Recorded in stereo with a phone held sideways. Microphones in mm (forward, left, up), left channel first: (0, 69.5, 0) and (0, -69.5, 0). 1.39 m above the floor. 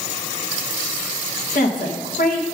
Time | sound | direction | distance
1.5 | a woman speaking | 80° left | 1.9 m